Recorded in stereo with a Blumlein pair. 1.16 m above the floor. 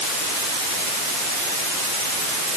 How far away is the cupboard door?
I don't hear a cupboard door.